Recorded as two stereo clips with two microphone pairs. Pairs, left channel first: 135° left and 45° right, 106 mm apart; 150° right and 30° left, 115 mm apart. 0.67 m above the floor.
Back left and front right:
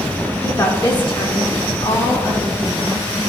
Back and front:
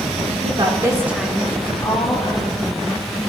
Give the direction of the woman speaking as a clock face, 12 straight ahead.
10 o'clock.